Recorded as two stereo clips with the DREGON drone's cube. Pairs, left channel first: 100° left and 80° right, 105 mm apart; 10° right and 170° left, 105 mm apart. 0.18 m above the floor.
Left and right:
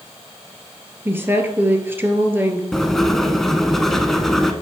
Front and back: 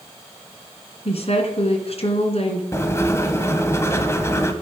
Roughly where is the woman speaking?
Ahead.